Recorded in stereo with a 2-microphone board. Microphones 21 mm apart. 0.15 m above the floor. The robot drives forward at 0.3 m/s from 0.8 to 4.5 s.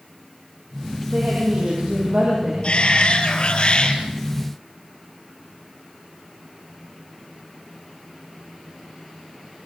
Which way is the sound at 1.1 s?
55° right (ahead or behind).